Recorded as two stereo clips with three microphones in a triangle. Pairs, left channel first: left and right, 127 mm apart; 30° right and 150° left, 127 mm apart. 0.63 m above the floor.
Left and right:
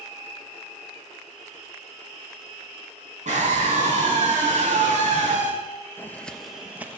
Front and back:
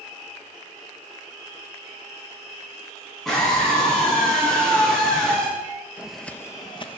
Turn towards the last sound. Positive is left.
turn(degrees=-20)